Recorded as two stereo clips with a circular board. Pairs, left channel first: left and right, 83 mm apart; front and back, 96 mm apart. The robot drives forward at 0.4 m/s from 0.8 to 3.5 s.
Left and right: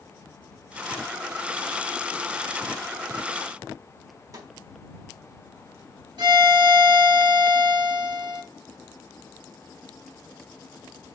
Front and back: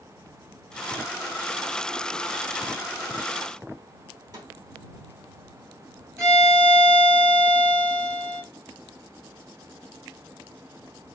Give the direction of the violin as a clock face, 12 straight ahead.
4 o'clock.